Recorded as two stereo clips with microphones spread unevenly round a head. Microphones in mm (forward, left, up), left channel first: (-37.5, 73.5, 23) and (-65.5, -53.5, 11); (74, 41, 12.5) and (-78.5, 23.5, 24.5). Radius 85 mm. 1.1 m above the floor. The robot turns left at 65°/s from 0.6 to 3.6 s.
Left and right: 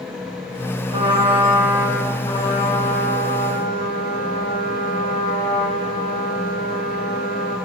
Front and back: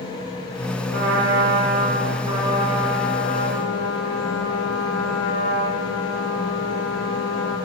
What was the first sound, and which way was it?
A trumpet, 135° right.